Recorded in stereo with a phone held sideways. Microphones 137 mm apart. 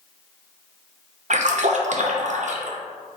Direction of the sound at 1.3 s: 60° right (ahead or behind).